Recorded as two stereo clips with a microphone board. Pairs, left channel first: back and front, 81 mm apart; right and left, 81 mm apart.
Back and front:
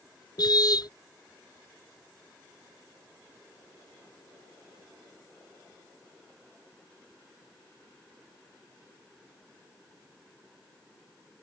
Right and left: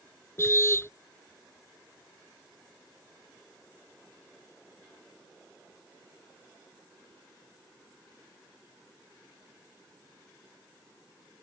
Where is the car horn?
150° right.